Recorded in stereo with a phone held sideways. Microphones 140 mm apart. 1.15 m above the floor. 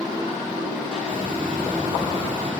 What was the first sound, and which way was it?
A hiss, 85° right.